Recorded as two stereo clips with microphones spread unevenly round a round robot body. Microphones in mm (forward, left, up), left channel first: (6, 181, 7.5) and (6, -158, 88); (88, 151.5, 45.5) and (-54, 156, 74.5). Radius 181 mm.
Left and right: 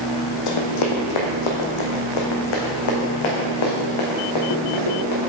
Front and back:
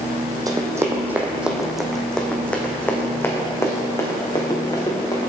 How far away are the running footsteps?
About 1.5 m.